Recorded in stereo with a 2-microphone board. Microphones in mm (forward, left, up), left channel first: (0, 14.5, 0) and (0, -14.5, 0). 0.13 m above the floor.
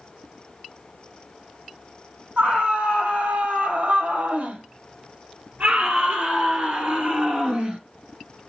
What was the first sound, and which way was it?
A scream, 60° right (ahead or behind).